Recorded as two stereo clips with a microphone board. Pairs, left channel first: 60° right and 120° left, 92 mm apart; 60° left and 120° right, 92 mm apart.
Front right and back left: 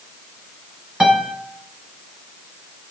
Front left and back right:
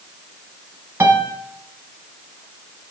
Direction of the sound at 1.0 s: 165° right.